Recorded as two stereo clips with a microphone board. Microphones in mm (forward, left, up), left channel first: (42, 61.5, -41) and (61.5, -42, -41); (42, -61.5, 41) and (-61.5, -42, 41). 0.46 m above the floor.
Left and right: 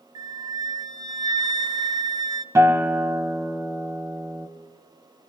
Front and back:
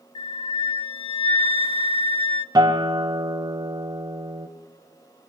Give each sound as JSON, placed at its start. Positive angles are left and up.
{"t": 0.1, "sound": "a flute", "azimuth_deg": -35, "distance_m": 0.5}
{"t": 2.5, "sound": "a guitar", "azimuth_deg": -140, "distance_m": 1.3}